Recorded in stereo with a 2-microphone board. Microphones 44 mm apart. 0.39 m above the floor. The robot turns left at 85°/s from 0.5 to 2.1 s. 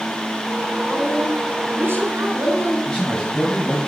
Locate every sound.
0.9 s a woman speaking: 15° left, 4 m; by 2.8 s 90° right, 4 m
2.9 s a man speaking: 15° left (ahead or behind), 3.5 m